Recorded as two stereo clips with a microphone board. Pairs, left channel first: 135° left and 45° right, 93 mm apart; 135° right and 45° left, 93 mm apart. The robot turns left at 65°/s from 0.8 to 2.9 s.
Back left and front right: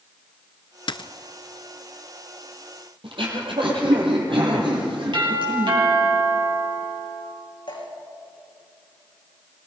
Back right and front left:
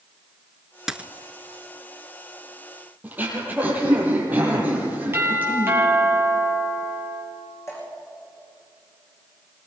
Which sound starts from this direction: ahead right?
Throat clearing, at 3.0 s.